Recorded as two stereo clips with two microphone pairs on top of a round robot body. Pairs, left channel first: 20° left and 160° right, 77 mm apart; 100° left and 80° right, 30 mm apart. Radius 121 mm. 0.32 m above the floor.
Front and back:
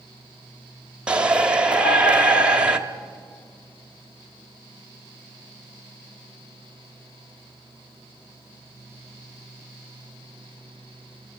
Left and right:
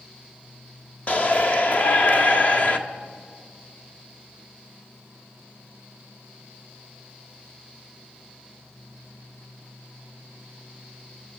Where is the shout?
135° left, 1.8 m.